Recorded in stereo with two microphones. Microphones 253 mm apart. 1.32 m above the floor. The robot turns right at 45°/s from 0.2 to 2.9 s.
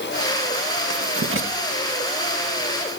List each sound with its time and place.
0.9 s writing: 75° right (ahead or behind), 1.9 m; by 1.5 s 45° right (ahead or behind), 1.9 m